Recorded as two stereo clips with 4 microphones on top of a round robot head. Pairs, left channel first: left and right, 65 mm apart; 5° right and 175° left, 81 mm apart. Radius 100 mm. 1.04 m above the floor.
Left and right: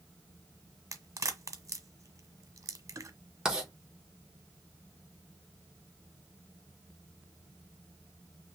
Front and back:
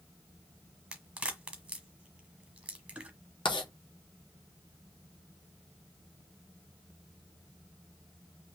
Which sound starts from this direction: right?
A crack, at 0.9 s.